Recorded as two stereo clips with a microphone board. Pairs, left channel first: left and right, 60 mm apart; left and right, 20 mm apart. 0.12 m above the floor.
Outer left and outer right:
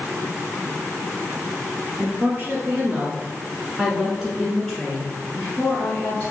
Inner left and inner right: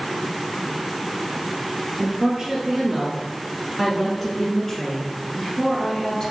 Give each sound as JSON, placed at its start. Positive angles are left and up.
{"t": 2.0, "sound": "a woman speaking", "side_deg": -40, "distance_m": 1.5}